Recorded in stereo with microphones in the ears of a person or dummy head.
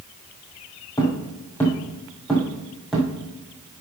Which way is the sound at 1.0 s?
15° left (ahead or behind).